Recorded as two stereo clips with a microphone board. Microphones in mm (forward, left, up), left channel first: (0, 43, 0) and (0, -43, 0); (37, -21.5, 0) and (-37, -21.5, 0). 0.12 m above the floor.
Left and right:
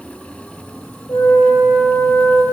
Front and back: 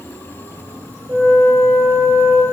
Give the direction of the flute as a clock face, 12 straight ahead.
7 o'clock.